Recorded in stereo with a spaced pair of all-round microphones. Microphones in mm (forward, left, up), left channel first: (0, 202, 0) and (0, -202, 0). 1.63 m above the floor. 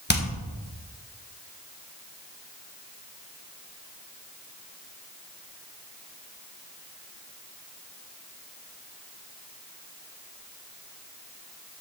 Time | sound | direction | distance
0.1 | hammering | 25° left (ahead or behind) | 1.5 m